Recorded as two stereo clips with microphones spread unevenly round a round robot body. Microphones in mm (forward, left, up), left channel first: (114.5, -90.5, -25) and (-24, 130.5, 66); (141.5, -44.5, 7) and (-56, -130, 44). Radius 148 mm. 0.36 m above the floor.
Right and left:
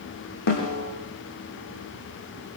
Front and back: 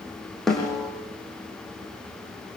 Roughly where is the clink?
No clink in this recording.